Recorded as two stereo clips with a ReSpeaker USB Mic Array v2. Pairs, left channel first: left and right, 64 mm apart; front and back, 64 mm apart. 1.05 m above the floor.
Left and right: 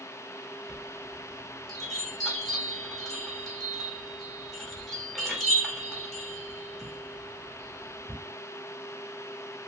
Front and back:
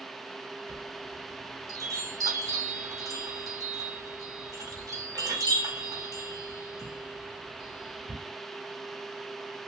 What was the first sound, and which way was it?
A chime, 175° left.